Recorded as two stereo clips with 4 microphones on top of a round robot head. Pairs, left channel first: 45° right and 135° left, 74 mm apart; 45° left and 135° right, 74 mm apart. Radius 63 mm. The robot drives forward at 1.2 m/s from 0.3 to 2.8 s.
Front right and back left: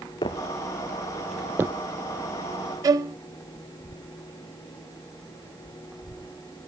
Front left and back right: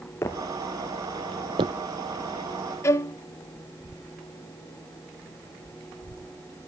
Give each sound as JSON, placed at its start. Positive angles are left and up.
{"t": 0.2, "sound": "footsteps", "azimuth_deg": -15, "distance_m": 1.7}
{"t": 2.8, "sound": "a violin", "azimuth_deg": 95, "distance_m": 0.8}